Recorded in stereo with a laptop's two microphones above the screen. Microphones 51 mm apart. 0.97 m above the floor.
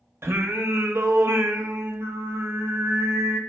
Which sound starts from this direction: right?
Singing, at 0.2 s.